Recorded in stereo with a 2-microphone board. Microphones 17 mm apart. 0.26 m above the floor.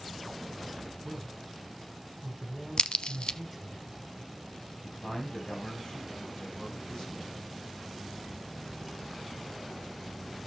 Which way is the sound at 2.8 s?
70° left (ahead or behind).